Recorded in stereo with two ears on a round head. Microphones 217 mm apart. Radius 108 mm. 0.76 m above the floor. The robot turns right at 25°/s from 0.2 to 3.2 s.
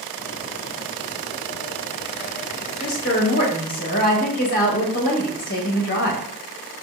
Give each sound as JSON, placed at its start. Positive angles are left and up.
{"t": 2.8, "sound": "a woman speaking", "side_deg": 40, "distance_m": 1.2}